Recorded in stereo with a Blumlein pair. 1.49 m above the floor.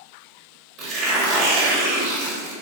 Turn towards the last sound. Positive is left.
turn(degrees=-35)